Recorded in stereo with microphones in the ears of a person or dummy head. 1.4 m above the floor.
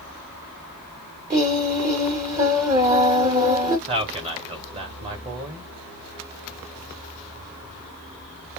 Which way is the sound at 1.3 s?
15° right (ahead or behind).